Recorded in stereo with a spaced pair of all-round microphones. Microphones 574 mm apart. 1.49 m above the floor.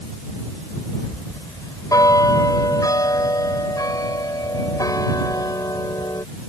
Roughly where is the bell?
Centre.